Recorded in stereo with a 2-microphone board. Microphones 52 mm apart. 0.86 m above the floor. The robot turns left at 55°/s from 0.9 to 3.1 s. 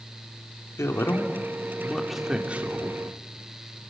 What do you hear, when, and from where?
0.8 s a man speaking: 65° left, 3 m; by 2.9 s 45° right, 3 m